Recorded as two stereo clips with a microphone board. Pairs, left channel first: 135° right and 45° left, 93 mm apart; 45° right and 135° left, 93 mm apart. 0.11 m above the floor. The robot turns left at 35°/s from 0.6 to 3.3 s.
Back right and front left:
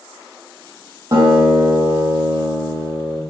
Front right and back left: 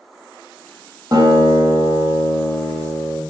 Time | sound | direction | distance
1.1 | a guitar | 90° left | 3 m